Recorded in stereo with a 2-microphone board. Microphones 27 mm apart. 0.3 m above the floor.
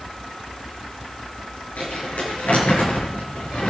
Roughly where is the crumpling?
Left.